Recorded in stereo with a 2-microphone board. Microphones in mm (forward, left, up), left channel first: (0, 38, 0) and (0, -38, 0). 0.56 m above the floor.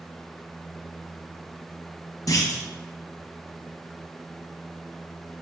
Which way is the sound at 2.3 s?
50° left (ahead or behind).